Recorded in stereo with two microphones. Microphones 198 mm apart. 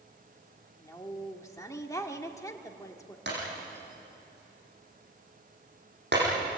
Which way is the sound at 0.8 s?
15° left (ahead or behind).